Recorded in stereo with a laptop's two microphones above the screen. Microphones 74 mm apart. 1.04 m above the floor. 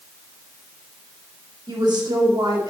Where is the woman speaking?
75° right (ahead or behind), 2 m.